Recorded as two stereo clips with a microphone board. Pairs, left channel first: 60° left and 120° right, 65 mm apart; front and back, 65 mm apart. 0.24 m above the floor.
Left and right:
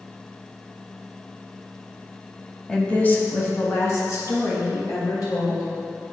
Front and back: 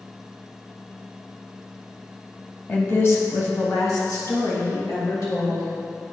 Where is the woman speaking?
10° right, 1.0 m; by 5.7 s 25° left, 4 m.